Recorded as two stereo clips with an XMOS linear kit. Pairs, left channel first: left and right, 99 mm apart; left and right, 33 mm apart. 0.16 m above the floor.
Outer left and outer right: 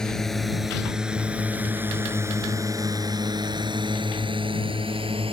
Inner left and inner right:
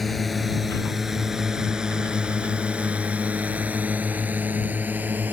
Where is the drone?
5° left (ahead or behind); by 5.3 s 65° right (ahead or behind).